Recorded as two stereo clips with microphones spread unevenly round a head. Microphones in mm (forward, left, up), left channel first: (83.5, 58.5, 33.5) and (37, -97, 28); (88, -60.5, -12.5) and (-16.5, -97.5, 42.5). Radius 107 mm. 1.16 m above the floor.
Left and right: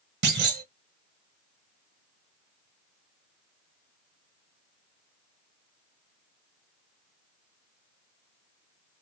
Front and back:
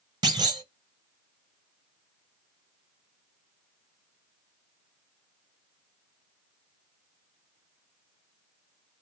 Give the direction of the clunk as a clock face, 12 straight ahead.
3 o'clock.